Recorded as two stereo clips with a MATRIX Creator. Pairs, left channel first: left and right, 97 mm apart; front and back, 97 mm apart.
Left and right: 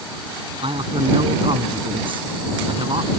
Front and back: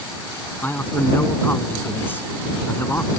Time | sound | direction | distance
0.6 | a man speaking | 70° right | ?